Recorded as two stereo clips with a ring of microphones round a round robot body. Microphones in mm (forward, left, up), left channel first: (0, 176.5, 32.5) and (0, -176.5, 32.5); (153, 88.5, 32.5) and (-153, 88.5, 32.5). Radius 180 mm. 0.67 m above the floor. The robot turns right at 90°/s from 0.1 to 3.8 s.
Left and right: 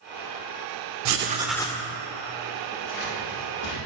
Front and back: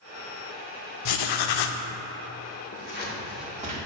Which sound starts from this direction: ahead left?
Scissors, at 2.7 s.